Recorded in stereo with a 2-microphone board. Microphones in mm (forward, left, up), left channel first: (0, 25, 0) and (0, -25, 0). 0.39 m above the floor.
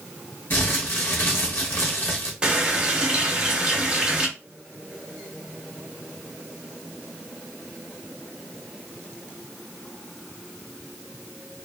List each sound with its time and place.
0.5 s crumpling: 50° left (ahead or behind), 1.0 m
2.4 s a running tap: 20° right (ahead or behind), 0.7 m